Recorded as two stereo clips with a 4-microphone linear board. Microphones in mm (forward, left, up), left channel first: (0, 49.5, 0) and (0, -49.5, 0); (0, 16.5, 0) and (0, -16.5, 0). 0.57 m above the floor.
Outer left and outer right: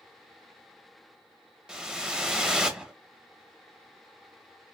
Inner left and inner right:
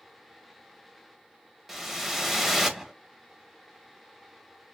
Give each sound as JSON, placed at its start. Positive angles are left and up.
{"t": 1.7, "sound": "a whoosh", "side_deg": -5, "distance_m": 0.5}